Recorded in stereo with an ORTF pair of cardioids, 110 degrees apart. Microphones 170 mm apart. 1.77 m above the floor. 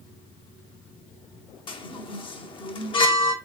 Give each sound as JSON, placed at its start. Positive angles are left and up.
{"t": 1.7, "sound": "a chime", "azimuth_deg": 30, "distance_m": 0.7}